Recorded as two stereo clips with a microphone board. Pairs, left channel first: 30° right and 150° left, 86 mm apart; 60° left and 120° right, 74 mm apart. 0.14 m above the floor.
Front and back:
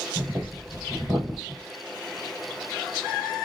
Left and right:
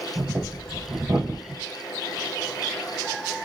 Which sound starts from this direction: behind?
Breathing, at 0.1 s.